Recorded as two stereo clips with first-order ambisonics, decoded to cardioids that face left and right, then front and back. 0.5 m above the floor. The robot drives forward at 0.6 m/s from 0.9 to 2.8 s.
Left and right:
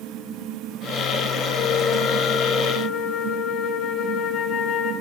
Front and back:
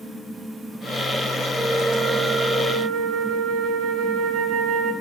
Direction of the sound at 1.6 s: 95° left.